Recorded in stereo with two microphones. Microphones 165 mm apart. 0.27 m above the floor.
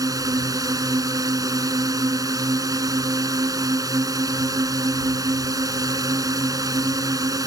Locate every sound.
0.0 s a drone: 20° right (ahead or behind)